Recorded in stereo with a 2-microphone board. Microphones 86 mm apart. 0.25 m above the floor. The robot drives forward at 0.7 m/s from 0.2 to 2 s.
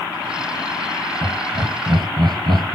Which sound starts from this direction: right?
Laughter, at 1.2 s.